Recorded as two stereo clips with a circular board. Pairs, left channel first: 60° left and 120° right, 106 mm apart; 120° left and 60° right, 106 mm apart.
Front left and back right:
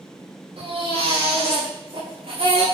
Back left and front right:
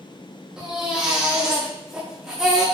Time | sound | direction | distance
0.6 | a baby crying | 145° right | 7 m